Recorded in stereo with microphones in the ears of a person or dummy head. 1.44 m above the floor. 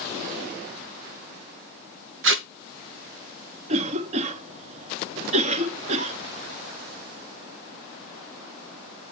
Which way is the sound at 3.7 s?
35° right (ahead or behind).